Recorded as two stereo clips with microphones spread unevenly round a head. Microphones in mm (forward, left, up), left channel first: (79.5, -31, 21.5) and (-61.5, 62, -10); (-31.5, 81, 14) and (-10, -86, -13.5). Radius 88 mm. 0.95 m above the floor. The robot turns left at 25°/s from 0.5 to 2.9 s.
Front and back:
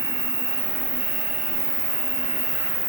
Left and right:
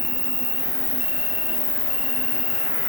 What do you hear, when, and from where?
0.0 s an insect: 170° left, 1.4 m; by 2.9 s 110° left, 1.4 m